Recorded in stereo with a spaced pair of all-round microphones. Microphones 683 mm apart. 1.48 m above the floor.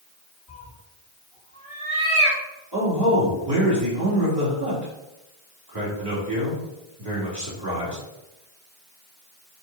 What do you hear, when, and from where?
0.5 s a cat meowing: centre (ahead or behind), 2.5 m; by 2.4 s 20° left (ahead or behind), 2.5 m
2.7 s a man speaking: 35° right (ahead or behind), 3.5 m